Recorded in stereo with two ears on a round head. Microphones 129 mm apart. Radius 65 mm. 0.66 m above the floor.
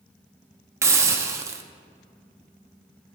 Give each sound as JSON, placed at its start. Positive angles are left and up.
{"t": 0.8, "sound": "a hiss", "side_deg": -20, "distance_m": 0.8}